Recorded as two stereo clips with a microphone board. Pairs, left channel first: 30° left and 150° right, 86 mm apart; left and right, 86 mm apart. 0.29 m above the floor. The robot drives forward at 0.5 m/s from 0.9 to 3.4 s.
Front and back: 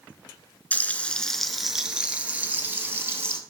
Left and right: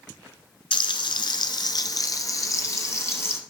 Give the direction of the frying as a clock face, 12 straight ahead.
9 o'clock.